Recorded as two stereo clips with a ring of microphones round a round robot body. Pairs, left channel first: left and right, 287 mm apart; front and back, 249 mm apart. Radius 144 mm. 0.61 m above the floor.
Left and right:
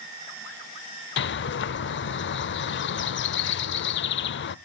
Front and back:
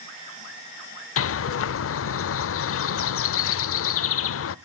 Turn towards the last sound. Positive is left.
turn(degrees=35)